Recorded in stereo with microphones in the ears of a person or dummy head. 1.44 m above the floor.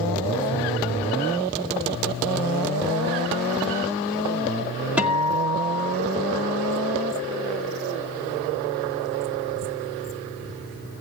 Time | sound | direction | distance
5.0 | a guitar | 5° right (ahead or behind) | 1.8 m